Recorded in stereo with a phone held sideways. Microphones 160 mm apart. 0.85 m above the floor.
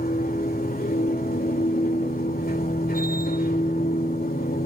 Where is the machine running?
65° left (ahead or behind), 2.5 m.